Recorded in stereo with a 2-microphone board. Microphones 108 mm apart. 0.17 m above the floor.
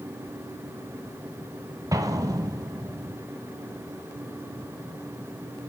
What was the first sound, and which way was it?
An explosion, 35° right (ahead or behind).